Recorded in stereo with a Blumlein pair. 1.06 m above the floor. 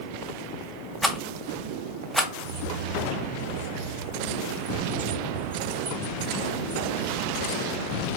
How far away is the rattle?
About 0.6 m.